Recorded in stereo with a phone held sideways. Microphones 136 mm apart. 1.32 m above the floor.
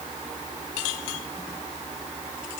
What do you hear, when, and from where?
Only background noise.